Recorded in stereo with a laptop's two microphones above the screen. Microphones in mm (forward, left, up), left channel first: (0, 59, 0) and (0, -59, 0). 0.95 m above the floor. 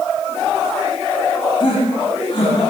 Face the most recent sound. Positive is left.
turn(degrees=50)  # may be behind; listen again after turning